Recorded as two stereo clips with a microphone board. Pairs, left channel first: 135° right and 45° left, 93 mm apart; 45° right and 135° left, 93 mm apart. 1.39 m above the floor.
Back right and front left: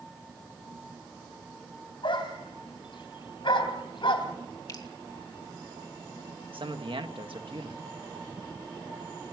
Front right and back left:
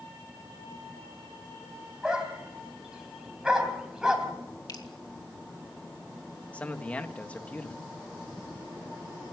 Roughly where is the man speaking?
Ahead left.